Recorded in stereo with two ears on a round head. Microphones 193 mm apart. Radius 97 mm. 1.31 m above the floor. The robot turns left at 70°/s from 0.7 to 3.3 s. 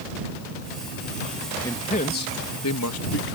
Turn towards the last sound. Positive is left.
turn(degrees=50)